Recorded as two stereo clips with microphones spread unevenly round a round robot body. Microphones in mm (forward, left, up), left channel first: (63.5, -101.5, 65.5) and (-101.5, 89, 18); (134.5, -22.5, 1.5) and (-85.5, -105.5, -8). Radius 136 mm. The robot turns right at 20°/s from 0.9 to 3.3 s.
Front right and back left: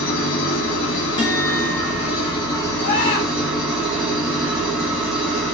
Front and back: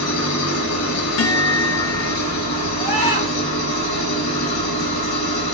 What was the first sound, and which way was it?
An engine running, 5° right.